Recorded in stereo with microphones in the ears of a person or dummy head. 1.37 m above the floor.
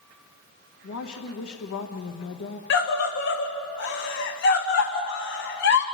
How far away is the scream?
About 1.0 m.